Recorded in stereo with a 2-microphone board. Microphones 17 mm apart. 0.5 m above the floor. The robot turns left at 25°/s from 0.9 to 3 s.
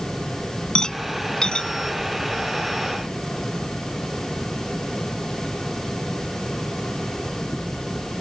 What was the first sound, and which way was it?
A rattle, 45° left (ahead or behind).